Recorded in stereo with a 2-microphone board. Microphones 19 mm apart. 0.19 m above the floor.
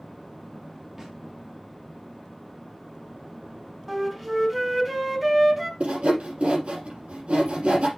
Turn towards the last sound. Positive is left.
turn(degrees=-75)  # may be behind; listen again after turning